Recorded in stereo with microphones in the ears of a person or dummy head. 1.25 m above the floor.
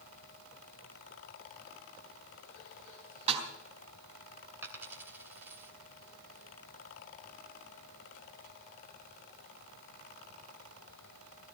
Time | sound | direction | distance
3.3 | a snare drum | 35° right (ahead or behind) | 3.5 m
4.6 | a dropped coin | 15° right (ahead or behind) | 2.5 m